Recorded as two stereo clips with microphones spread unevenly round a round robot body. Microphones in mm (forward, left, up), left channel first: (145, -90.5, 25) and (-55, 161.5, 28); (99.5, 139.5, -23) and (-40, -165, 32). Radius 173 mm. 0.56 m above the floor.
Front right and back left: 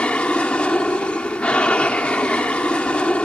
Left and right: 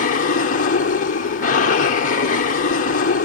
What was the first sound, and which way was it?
An aircraft, 35° left.